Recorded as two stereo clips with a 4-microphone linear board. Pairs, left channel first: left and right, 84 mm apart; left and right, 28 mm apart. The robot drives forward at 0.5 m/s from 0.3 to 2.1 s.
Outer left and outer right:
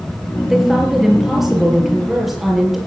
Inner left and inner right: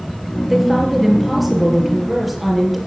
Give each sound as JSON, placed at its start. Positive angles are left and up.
{"t": 0.5, "sound": "a woman speaking", "side_deg": -5, "distance_m": 5.0}